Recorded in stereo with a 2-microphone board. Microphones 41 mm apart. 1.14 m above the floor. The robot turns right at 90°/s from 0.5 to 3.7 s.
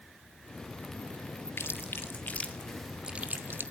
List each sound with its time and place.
1.6 s chewing: 65° left (ahead or behind), 1.9 m; by 3.6 s 70° right (ahead or behind), 1.9 m